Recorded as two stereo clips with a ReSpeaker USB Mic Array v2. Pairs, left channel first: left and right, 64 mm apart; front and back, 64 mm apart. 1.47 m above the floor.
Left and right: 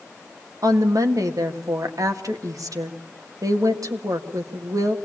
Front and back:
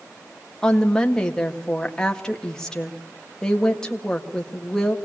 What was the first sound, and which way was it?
A woman speaking, 80° right.